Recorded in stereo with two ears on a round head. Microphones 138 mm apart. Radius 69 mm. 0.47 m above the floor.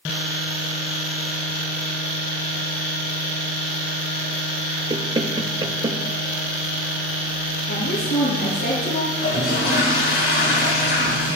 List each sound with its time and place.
4.9 s knocking: 30° right (ahead or behind), 1.5 m
7.7 s a woman speaking: 85° left, 7.5 m
9.1 s a toilet flushing: 70° left (ahead or behind), 6.5 m